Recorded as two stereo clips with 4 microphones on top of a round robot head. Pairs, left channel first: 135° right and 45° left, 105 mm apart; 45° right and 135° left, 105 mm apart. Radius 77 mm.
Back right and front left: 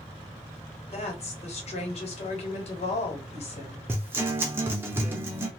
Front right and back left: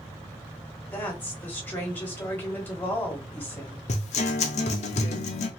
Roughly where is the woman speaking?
Behind right.